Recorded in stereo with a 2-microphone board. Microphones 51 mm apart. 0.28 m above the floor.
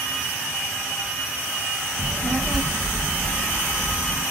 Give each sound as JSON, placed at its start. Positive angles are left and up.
{"t": 2.0, "sound": "a child speaking", "side_deg": 20, "distance_m": 0.7}